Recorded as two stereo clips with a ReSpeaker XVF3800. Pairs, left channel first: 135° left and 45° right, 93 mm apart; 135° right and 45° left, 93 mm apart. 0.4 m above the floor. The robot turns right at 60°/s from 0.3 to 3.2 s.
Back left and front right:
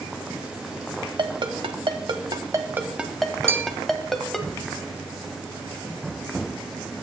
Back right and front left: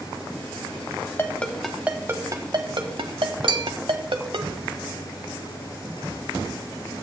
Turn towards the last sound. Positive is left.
turn(degrees=20)